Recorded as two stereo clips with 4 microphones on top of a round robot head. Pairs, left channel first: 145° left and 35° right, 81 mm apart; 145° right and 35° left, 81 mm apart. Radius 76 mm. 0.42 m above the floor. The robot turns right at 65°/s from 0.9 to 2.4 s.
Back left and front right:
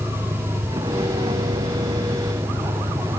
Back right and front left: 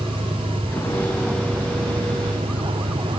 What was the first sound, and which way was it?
A vehicle, 75° right.